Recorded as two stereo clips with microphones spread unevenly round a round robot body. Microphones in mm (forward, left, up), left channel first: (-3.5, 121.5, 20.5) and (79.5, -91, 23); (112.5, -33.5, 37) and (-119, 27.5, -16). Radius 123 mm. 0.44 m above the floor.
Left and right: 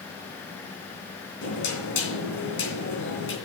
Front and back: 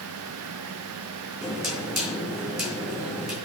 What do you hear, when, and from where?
1.4 s knocking: 80° left, 3 m